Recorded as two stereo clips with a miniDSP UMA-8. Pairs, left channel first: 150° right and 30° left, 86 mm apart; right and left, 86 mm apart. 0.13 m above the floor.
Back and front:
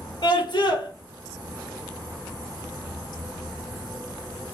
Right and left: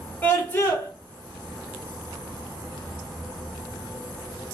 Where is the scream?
155° right, 2 m.